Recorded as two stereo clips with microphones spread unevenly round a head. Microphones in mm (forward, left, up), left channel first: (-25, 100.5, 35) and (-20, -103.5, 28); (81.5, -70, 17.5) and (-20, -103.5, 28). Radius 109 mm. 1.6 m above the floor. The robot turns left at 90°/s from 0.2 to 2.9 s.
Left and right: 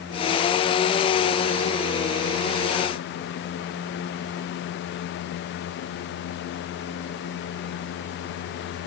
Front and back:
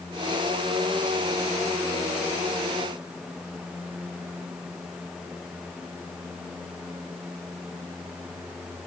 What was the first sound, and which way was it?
Only background noise.